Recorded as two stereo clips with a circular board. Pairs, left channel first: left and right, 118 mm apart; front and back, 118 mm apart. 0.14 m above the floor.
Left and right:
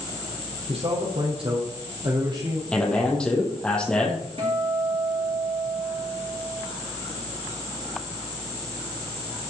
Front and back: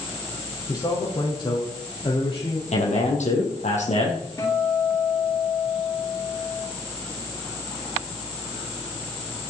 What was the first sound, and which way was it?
A man speaking, 55° right.